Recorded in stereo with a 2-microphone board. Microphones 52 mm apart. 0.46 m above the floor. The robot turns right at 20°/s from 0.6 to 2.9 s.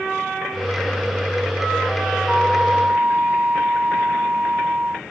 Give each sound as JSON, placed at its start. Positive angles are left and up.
{"t": 2.3, "sound": "a flute", "side_deg": -15}